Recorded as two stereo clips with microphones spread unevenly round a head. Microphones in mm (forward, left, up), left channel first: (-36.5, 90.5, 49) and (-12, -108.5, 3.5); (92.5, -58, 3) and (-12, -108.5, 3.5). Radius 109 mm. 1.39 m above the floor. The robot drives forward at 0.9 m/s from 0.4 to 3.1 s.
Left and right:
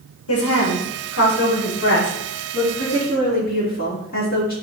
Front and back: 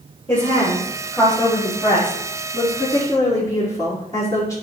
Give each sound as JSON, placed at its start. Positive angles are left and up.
{"t": 0.3, "sound": "a woman speaking", "azimuth_deg": 90, "distance_m": 2.0}